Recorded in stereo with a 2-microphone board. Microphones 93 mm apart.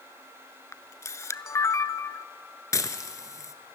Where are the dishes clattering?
40° left (ahead or behind), 1.1 m.